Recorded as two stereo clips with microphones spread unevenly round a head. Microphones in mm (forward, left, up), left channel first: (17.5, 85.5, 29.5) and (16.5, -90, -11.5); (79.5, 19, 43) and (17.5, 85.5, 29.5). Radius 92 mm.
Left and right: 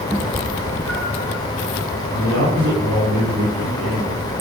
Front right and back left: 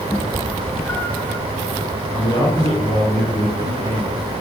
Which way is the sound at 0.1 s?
15° left.